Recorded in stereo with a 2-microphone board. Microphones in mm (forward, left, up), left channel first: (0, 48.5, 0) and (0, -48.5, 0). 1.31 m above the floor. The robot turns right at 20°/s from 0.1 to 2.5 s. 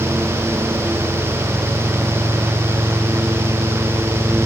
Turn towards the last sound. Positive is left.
No sound to turn to.